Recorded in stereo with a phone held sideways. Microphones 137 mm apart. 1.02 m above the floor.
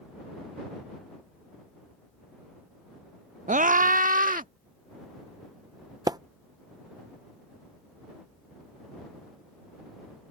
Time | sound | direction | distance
3.5 | a scream | 65° right (ahead or behind) | ?
6.1 | a splash | 30° right (ahead or behind) | ?